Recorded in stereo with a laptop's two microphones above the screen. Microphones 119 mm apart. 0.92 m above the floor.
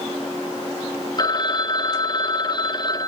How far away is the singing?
I don't hear singing.